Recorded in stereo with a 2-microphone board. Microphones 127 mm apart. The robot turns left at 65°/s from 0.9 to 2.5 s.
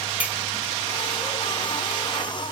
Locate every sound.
0.2 s a clink: 10° right (ahead or behind), 0.8 m